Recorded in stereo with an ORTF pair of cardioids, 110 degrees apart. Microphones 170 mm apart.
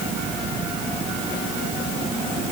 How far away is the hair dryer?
I don't hear a hair dryer.